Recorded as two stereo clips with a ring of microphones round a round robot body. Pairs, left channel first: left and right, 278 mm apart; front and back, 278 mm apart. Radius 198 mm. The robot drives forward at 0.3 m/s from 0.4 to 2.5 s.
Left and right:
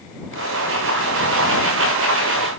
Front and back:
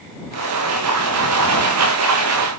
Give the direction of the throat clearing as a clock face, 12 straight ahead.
No throat clearing in this recording.